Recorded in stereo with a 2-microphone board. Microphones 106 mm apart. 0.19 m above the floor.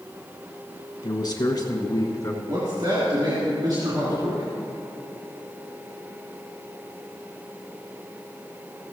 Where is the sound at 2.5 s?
45° right (ahead or behind), 3 m.